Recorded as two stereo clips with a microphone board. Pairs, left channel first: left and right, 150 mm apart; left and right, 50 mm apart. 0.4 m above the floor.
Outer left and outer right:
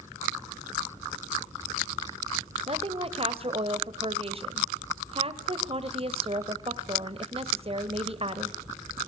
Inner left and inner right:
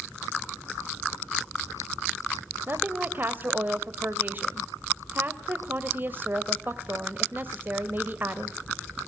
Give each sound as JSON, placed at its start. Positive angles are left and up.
{"t": 2.7, "sound": "a woman speaking", "side_deg": -40, "distance_m": 1.5}